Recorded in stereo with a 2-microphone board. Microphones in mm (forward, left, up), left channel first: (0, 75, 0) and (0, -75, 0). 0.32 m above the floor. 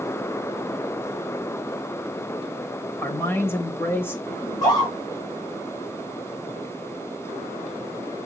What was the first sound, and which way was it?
A man speaking, 15° left (ahead or behind).